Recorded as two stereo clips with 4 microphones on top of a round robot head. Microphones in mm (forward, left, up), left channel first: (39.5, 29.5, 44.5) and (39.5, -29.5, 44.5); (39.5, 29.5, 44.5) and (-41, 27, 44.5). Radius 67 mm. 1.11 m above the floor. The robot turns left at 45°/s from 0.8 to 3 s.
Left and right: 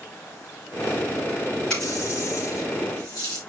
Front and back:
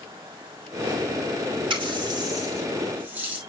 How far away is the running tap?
About 3.5 m.